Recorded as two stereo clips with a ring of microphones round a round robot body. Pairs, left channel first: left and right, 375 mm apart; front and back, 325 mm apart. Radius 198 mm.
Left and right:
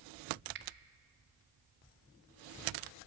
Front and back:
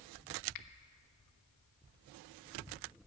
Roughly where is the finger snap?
Ahead right.